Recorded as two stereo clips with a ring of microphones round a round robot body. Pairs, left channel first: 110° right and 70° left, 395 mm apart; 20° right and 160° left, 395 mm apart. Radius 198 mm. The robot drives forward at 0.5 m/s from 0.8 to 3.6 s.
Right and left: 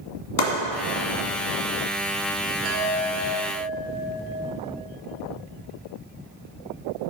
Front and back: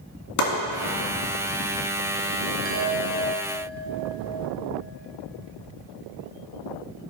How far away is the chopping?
About 1.7 m.